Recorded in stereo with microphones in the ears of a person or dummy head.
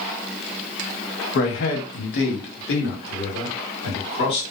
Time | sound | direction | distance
1.4 | a man speaking | 55° left (ahead or behind) | 0.7 m